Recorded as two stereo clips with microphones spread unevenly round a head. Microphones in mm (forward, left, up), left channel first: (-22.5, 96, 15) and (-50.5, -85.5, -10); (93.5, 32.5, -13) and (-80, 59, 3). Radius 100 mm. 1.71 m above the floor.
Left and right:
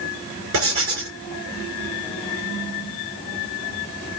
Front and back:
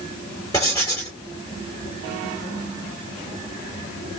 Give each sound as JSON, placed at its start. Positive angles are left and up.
{"t": 0.5, "sound": "writing", "azimuth_deg": -85, "distance_m": 3.0}